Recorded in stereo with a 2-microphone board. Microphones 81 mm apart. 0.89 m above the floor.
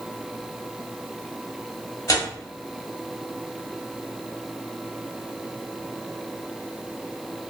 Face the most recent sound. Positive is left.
turn(degrees=45)  # may be behind; listen again after turning